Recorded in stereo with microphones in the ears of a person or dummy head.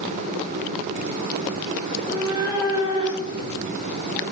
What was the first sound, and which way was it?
A cat meowing, 15° right (ahead or behind).